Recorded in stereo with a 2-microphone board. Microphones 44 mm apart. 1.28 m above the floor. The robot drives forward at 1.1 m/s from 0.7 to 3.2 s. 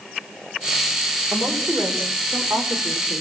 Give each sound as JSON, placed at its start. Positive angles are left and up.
{"t": 1.3, "sound": "a woman speaking", "side_deg": -60, "distance_m": 4.5}